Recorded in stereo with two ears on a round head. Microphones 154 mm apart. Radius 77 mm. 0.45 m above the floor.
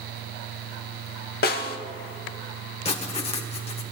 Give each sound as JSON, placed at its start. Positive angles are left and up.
{"t": 1.4, "sound": "a snare drum", "side_deg": 55, "distance_m": 1.1}
{"t": 2.9, "sound": "writing", "side_deg": 35, "distance_m": 1.5}